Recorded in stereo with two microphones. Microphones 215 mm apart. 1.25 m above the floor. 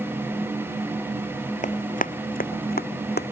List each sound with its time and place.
1.6 s running footsteps: 35° left (ahead or behind); by 3.3 s 50° left (ahead or behind)